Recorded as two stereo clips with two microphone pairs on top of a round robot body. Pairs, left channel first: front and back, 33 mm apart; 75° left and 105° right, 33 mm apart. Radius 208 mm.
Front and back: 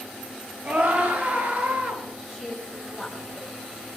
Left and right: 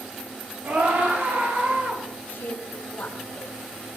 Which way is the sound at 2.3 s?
95° left.